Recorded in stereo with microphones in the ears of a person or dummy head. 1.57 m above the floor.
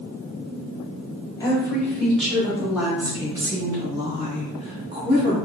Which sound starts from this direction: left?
A woman speaking, at 1.4 s.